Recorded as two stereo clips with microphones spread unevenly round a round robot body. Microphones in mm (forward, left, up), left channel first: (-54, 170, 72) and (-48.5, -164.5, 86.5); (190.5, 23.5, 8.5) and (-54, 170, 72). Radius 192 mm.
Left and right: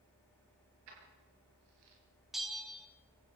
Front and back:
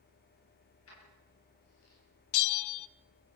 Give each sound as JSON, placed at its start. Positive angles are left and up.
{"t": 0.9, "sound": "keys jangling", "azimuth_deg": -85, "distance_m": 6.5}
{"t": 2.3, "sound": "a bell", "azimuth_deg": 0, "distance_m": 0.6}